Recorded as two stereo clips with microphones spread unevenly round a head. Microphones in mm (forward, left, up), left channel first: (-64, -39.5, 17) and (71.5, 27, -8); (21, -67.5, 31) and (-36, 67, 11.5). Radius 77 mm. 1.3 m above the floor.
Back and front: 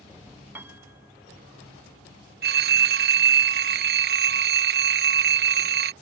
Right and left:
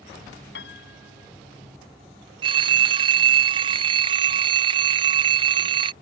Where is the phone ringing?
55° left.